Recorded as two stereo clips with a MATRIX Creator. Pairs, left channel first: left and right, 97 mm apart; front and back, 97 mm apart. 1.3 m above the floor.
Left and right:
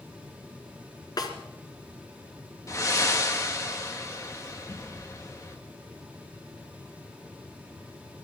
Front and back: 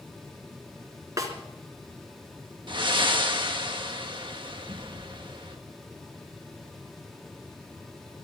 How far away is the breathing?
About 1.6 m.